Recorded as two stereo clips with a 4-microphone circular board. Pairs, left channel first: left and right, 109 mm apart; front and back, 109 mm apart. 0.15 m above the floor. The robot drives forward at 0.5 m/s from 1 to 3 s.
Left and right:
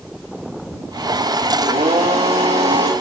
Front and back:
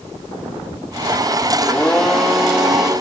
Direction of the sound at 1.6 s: 80° right.